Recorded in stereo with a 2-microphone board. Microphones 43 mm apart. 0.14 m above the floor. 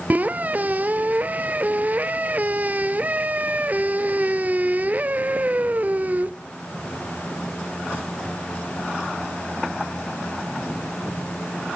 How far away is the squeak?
About 0.8 m.